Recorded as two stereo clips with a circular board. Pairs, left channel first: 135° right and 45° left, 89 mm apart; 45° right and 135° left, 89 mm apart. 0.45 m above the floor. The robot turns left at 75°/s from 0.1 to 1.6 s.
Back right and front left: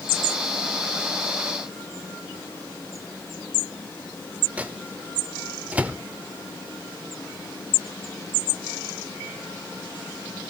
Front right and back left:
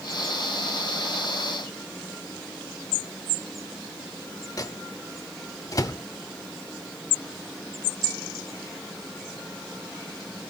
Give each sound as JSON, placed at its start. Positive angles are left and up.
{"t": 4.6, "sound": "a microwave", "azimuth_deg": -25, "distance_m": 0.9}